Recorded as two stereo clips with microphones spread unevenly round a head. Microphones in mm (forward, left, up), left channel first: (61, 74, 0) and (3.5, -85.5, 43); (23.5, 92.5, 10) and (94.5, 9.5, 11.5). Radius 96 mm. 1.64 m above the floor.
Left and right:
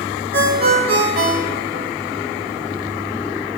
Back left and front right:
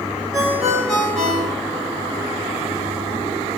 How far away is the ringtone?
About 1.6 m.